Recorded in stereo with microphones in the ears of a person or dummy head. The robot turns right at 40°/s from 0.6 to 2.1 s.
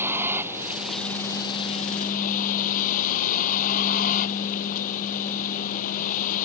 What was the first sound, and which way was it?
A vehicle, 10° right.